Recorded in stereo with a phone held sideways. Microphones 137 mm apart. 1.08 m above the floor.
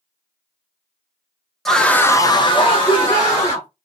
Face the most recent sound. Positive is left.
turn(degrees=35)  # may be behind; listen again after turning